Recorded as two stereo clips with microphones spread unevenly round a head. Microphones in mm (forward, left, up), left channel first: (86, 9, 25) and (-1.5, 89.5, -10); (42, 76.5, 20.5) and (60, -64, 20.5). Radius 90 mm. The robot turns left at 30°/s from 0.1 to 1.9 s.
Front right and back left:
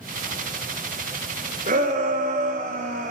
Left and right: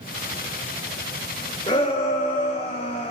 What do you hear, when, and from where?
1.7 s a shout: 160° left, 0.6 m; by 3.1 s 155° left, 0.6 m